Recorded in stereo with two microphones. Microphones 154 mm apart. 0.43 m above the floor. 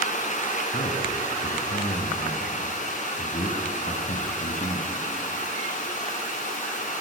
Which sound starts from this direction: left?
A man speaking, at 0.7 s.